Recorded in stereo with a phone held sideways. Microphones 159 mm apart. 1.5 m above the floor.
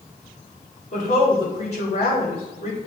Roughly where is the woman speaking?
Left.